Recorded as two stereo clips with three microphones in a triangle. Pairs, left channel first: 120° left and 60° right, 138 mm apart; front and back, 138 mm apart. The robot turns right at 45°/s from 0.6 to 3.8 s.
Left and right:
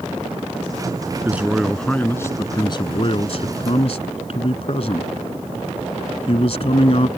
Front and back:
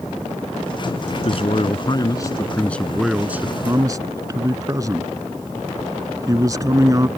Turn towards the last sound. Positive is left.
turn(degrees=125)